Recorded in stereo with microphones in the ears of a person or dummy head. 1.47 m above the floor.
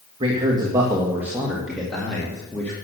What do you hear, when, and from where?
0.2 s a man speaking: 35° right (ahead or behind), 1.7 m; by 2.7 s 5° left (ahead or behind), 2.5 m